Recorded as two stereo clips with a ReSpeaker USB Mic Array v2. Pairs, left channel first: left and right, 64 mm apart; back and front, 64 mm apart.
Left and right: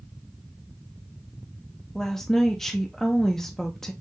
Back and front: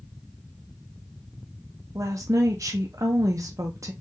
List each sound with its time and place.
1.9 s a woman speaking: 5° left, 0.6 m